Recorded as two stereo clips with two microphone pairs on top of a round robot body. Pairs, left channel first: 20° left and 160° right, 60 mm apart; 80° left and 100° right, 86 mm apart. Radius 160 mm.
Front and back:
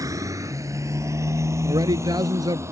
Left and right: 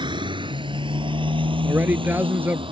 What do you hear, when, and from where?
0.0 s a motorcycle: 130° right; by 2.7 s 115° right
1.6 s a man speaking: 170° right